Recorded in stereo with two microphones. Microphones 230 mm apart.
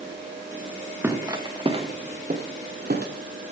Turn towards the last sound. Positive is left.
turn(degrees=-50)  # may be behind; listen again after turning